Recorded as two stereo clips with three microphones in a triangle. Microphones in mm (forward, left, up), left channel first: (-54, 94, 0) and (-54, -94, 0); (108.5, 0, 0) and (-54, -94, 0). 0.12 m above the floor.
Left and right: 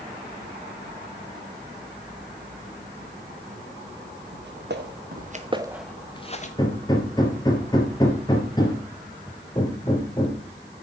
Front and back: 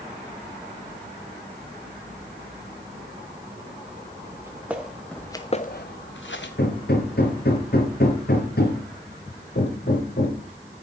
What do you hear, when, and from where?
4.3 s footsteps: 75° right, 2 m; by 6.5 s 45° left, 1.4 m
6.6 s hammering: 25° left, 2.5 m